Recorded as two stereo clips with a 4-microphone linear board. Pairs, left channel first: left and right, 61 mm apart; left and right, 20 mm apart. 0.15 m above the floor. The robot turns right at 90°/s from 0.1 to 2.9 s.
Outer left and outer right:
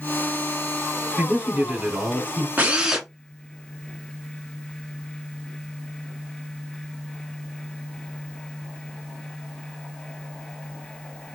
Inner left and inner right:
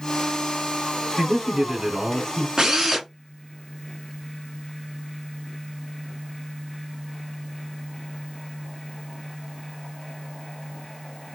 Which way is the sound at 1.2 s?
15° right (ahead or behind).